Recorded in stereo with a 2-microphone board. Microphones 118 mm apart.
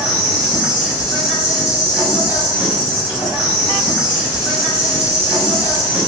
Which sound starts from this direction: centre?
An insect, at 0.0 s.